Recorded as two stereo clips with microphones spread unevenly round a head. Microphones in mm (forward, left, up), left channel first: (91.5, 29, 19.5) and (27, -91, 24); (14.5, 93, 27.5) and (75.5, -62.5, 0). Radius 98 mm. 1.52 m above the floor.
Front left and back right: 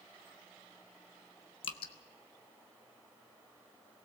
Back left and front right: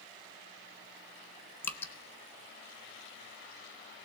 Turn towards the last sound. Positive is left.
turn(degrees=60)